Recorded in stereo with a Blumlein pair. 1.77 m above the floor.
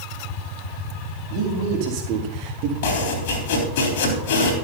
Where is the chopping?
50° left, 3.5 m.